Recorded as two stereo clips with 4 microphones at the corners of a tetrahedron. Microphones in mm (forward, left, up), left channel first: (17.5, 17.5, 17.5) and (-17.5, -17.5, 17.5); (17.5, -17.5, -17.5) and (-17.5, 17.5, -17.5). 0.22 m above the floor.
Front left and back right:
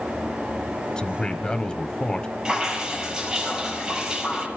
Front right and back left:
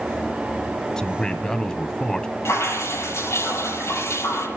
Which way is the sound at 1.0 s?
5° left.